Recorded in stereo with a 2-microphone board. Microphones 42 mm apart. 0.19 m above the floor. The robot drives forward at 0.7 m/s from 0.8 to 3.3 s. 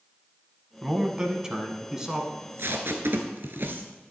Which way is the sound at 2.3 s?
65° right (ahead or behind).